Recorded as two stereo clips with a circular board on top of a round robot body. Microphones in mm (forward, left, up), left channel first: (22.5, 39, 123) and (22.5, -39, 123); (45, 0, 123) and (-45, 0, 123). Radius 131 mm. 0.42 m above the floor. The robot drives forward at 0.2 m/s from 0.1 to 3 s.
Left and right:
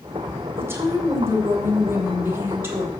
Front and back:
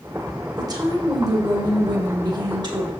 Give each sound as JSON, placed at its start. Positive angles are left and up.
{"t": 0.6, "sound": "a woman speaking", "azimuth_deg": -145, "distance_m": 2.5}